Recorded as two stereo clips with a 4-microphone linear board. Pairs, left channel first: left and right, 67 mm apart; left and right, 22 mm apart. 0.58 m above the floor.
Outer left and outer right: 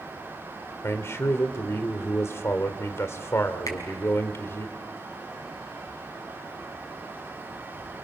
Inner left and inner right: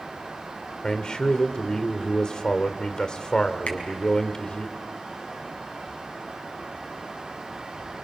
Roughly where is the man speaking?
Left.